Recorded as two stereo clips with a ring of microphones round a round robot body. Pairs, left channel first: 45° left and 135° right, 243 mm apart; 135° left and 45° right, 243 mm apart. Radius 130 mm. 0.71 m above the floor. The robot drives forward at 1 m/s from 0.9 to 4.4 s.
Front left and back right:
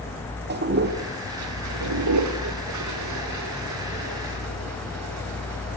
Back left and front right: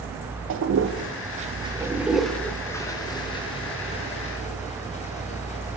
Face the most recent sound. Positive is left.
turn(degrees=-160)